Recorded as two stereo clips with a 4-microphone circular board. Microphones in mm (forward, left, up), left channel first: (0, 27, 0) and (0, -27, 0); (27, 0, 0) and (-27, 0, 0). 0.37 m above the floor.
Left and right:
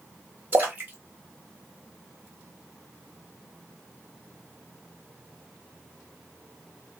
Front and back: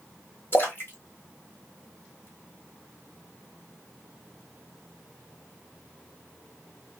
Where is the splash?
45° right, 1.1 m.